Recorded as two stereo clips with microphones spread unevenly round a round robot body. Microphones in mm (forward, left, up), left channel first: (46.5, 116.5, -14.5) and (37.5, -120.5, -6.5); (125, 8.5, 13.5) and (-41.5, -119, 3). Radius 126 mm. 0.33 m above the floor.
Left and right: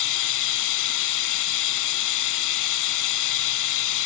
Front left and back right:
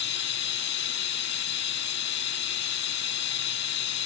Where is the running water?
90° left, 0.7 m.